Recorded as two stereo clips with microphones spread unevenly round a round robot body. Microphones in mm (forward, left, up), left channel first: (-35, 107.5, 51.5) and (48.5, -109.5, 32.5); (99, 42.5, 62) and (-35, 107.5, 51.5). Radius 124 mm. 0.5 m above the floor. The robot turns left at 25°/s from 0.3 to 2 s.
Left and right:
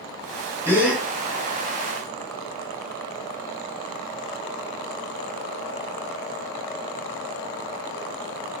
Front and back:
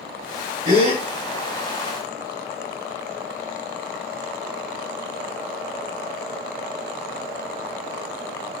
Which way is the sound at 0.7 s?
150° right.